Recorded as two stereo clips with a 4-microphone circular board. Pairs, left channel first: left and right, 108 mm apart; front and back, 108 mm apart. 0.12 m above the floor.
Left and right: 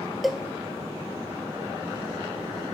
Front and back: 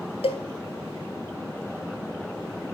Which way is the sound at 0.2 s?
Straight ahead.